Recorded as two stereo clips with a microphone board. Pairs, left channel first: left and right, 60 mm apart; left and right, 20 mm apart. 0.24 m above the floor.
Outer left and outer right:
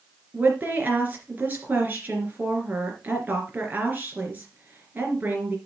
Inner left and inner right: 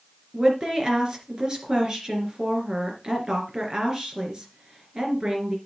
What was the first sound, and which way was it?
A woman speaking, 30° right (ahead or behind).